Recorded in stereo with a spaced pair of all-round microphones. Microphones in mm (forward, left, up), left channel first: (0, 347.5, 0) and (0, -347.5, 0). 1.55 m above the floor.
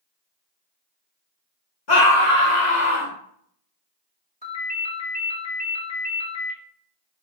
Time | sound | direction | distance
1.9 | a scream | 75° left (ahead or behind) | 1.7 m
4.4 | a ringtone | 10° left (ahead or behind) | 2 m